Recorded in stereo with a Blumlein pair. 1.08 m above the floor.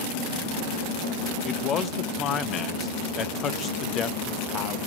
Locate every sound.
1.4 s a man speaking: 25° left, 0.8 m